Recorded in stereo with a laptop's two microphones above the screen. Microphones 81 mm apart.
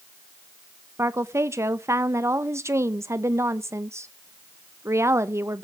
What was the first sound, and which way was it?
A woman speaking, 35° right (ahead or behind).